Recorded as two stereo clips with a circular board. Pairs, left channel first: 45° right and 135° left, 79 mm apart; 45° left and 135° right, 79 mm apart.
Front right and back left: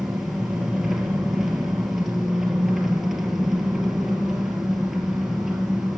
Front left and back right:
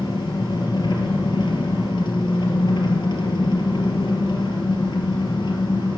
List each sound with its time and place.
0.0 s an engine running: 50° left, 2.0 m